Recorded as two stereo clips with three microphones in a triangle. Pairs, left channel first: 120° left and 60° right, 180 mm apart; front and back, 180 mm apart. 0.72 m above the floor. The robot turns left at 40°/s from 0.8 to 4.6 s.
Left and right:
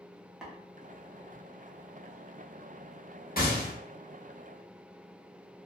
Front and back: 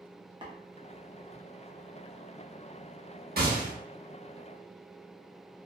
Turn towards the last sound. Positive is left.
turn(degrees=105)